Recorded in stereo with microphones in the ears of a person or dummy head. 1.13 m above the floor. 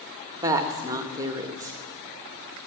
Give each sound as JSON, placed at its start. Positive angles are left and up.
{"t": 0.4, "sound": "a woman speaking", "side_deg": -20, "distance_m": 1.5}